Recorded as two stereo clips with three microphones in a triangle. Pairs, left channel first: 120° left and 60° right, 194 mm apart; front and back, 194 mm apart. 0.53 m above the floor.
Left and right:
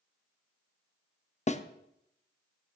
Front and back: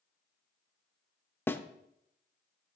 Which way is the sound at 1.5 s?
75° left.